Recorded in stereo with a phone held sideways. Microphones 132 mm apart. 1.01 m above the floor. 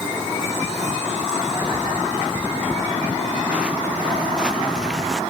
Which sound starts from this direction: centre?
Footsteps, at 1.6 s.